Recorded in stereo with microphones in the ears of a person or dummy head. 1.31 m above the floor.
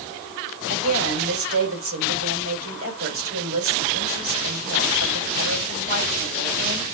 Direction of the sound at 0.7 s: 80° right.